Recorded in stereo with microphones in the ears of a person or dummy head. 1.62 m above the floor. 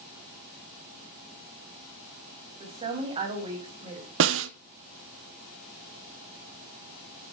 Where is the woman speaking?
30° right (ahead or behind), 5.5 m.